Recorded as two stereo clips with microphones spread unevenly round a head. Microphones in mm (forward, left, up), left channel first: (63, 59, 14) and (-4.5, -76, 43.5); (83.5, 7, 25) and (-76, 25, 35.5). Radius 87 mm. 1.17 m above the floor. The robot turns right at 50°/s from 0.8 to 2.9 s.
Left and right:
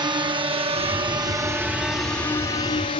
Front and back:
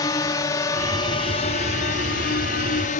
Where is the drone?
60° right; by 3.0 s 25° left.